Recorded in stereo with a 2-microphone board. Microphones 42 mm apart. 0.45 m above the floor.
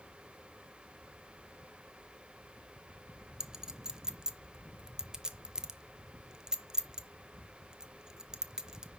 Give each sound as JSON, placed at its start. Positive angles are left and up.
{"t": 3.4, "sound": "a clink", "side_deg": -15, "distance_m": 0.6}